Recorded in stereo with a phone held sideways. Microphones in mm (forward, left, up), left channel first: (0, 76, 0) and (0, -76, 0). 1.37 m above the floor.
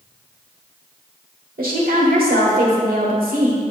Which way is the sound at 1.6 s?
75° right (ahead or behind).